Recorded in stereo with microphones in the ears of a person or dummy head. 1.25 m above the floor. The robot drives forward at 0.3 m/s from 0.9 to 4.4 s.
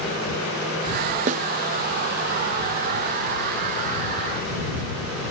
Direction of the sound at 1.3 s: 45° right (ahead or behind).